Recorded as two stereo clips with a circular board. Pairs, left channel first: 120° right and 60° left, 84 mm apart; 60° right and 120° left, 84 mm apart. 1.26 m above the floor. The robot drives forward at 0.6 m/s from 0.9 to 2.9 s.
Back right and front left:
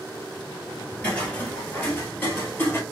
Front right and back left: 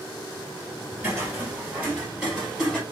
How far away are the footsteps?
About 1.5 m.